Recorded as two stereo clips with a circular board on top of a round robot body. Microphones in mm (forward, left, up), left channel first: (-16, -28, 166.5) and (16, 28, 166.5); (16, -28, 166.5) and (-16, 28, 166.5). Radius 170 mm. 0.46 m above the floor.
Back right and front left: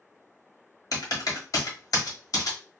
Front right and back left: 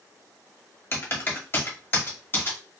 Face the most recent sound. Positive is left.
turn(degrees=-110)